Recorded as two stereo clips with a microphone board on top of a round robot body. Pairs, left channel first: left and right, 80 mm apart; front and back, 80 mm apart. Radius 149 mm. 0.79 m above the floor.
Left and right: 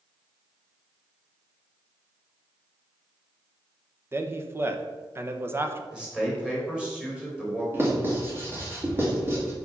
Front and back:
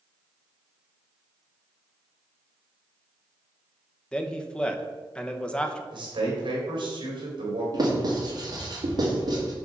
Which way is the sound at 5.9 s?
170° right.